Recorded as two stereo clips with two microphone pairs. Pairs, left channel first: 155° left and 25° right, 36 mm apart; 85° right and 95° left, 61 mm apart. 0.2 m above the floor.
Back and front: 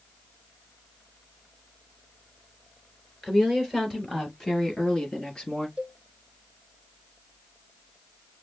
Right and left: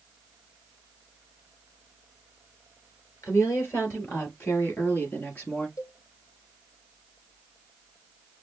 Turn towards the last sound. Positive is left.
turn(degrees=-80)